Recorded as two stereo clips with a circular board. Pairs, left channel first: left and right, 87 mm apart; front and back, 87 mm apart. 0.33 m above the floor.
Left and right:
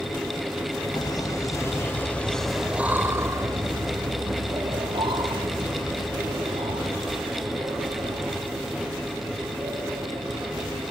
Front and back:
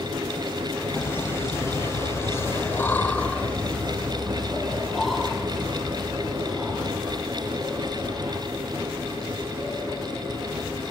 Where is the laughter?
60° left, 1.8 m; by 10.9 s 100° right, 7.5 m.